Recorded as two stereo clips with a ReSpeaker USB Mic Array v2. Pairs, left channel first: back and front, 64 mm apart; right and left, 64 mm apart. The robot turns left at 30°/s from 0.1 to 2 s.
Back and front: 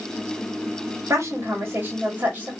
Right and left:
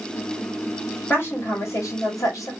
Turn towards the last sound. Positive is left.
turn(degrees=-65)